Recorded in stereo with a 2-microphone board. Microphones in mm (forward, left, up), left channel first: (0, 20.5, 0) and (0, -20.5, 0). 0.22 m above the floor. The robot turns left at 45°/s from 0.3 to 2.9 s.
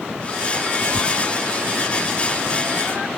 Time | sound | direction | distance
0.9 | tearing paper | 45° right (ahead or behind) | ?